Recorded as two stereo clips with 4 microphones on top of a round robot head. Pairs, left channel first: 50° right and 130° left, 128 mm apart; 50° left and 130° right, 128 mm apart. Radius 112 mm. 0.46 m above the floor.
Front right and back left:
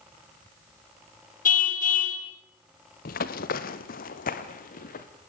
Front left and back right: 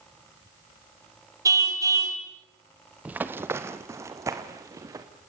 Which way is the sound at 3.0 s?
50° right.